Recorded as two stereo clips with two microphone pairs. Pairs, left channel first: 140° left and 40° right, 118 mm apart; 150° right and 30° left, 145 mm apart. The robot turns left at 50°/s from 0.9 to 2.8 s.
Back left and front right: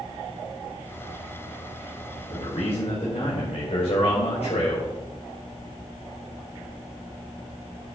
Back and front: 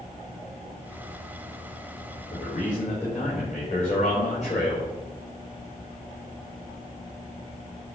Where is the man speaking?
165° right, 5 m; by 4.9 s 170° left, 5 m.